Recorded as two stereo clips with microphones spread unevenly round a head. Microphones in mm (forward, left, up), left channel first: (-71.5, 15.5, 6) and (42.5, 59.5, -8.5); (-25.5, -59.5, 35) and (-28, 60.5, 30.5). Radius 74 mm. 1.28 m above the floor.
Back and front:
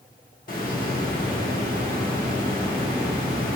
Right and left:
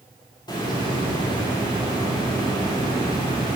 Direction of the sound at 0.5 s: 145° right.